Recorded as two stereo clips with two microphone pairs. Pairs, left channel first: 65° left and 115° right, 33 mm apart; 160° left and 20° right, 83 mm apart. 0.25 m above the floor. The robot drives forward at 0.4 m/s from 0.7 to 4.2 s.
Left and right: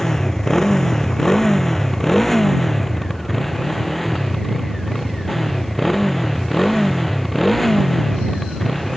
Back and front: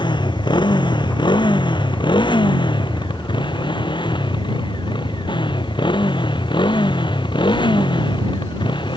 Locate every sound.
0.0 s a motorcycle: 140° left; by 9.0 s 150° left